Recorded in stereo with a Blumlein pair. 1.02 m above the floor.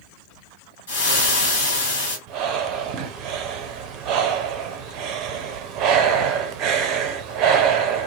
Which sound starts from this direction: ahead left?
Frying, at 0.9 s.